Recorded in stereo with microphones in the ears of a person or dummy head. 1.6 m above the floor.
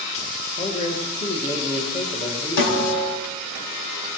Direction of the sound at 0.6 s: 35° left (ahead or behind).